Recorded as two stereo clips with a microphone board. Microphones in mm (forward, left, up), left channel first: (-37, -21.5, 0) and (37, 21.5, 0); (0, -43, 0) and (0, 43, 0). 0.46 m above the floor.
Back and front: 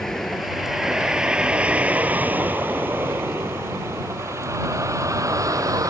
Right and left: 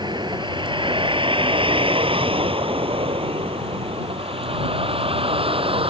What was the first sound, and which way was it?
A vehicle, 125° left.